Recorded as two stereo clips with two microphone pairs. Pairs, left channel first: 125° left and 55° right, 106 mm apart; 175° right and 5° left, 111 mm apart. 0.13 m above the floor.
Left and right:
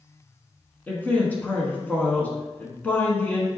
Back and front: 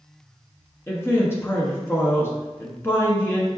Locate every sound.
0.9 s a man speaking: 170° left, 1.1 m